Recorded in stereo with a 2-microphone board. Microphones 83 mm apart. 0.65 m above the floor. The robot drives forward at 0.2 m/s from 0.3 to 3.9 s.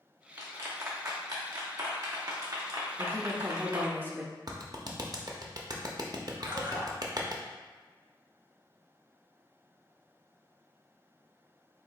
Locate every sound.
0.4 s a clap: 45° right (ahead or behind), 1.2 m
3.0 s a woman speaking: 25° right (ahead or behind), 0.5 m
4.5 s a clap: 50° right (ahead or behind), 0.6 m
6.4 s a splash: 90° right, 1.5 m